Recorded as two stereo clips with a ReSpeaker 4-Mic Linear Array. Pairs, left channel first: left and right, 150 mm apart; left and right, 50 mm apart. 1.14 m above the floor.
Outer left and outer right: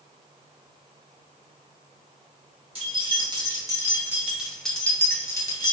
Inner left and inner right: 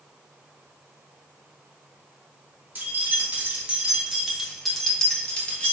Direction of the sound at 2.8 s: 40° right (ahead or behind).